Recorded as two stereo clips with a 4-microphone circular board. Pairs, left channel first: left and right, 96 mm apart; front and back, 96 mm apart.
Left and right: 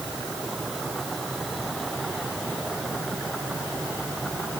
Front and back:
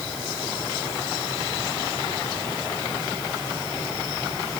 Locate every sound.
Only background noise.